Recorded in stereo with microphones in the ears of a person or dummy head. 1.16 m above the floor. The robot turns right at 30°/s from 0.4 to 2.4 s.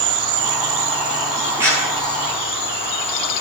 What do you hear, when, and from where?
0.0 s an insect: 50° right, 0.8 m; by 3.4 s 10° left, 0.8 m
1.6 s a clap: 15° right (ahead or behind), 9.5 m; by 1.9 s 25° right (ahead or behind), 9.5 m